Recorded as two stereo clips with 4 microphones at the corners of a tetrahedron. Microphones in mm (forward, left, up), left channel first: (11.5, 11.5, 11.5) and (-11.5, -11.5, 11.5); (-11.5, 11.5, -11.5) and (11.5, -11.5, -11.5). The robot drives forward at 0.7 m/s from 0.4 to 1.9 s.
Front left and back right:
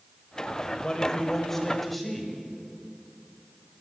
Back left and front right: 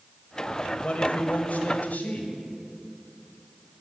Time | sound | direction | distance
0.8 | a man speaking | 100° left | 1.4 m